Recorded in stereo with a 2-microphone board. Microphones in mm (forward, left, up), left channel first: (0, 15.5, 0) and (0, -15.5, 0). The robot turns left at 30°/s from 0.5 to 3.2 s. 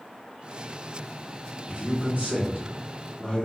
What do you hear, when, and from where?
1.7 s a man speaking: 115° right, 1.5 m; by 3.5 s 160° right, 1.5 m